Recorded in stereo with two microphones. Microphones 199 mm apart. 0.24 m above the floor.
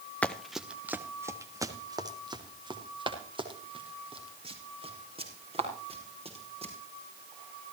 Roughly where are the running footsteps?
Centre.